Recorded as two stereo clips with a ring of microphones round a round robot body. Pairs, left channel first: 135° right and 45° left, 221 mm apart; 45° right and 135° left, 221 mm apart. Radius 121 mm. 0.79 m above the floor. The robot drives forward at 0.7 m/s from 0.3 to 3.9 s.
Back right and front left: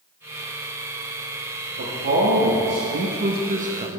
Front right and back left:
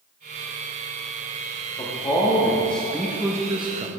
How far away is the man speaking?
About 1.8 m.